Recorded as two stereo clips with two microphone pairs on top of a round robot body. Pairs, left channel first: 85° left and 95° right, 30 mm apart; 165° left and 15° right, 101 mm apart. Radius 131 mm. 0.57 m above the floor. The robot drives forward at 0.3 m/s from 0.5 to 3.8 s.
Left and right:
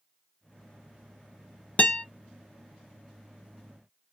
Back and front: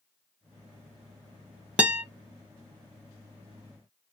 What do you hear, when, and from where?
1.8 s a guitar: 65° left, 0.9 m; by 2.0 s 70° left, 0.9 m